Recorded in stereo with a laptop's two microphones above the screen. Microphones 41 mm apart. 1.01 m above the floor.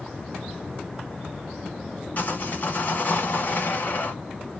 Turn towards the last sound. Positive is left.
turn(degrees=50)  # may be behind; listen again after turning